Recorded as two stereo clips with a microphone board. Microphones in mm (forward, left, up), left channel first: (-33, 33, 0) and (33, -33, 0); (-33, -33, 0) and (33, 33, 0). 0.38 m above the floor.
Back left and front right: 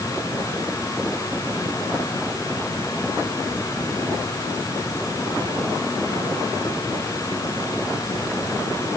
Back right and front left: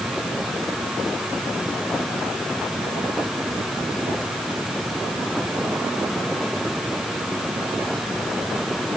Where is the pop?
No pop in this recording.